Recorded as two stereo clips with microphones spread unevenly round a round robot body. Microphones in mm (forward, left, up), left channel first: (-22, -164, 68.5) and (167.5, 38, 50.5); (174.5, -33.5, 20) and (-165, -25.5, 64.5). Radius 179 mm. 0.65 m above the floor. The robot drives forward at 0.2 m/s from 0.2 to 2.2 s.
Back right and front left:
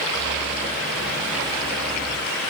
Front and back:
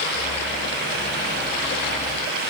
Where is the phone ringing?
I don't hear a phone ringing.